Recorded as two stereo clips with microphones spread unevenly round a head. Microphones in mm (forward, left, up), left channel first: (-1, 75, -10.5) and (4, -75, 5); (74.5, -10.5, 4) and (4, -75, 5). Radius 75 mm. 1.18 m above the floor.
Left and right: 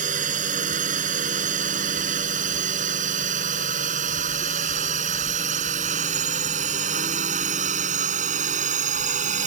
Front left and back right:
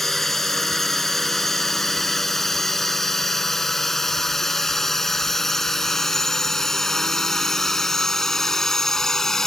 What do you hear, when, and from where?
0.0 s a drone: 45° right